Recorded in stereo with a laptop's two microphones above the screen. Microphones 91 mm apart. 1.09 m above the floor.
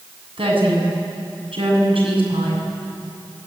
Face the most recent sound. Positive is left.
turn(degrees=-80)